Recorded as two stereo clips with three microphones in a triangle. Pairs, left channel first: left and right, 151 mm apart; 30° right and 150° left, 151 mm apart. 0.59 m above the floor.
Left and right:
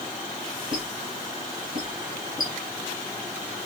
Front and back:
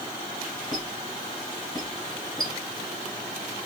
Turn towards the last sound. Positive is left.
turn(degrees=-95)